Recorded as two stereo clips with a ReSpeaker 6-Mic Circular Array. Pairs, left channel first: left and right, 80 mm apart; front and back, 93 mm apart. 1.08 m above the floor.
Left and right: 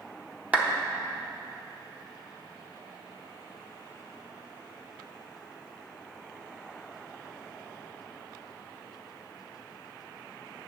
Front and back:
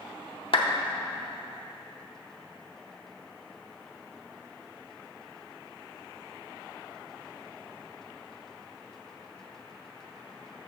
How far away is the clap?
About 0.8 m.